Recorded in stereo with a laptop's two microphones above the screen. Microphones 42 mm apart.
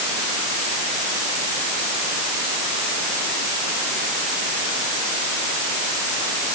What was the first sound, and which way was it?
Only background noise.